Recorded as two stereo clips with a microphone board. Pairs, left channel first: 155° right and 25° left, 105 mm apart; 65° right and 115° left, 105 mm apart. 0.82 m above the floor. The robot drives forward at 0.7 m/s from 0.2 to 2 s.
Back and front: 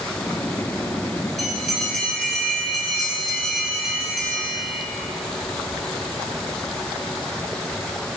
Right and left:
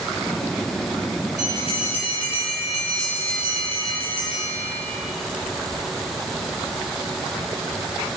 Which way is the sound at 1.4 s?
70° right.